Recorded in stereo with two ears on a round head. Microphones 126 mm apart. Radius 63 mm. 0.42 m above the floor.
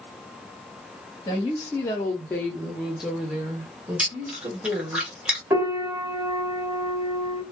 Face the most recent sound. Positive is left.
turn(degrees=-20)  # may be behind; listen again after turning